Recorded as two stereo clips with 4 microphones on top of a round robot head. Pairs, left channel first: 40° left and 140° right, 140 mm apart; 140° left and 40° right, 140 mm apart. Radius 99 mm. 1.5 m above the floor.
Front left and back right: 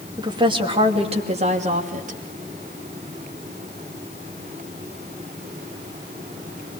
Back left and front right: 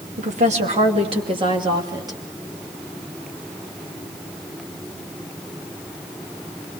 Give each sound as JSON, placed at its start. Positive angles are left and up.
{"t": 0.2, "sound": "a woman speaking", "azimuth_deg": -80, "distance_m": 2.5}